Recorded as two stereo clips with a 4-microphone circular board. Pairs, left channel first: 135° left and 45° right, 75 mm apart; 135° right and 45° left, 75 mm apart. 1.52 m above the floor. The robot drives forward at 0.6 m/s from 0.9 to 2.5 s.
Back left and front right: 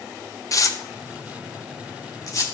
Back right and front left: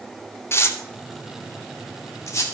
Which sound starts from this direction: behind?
Tearing paper, at 0.5 s.